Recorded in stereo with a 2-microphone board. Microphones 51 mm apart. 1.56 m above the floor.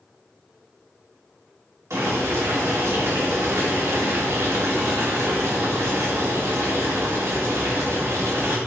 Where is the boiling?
70° right (ahead or behind), 3 m.